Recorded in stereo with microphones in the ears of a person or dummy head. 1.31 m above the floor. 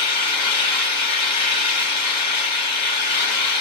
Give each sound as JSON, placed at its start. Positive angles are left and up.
{"t": 0.0, "sound": "an engine running", "side_deg": 30, "distance_m": 2.5}